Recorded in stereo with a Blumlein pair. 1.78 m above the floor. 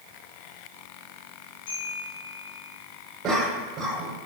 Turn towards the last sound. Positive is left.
turn(degrees=-30)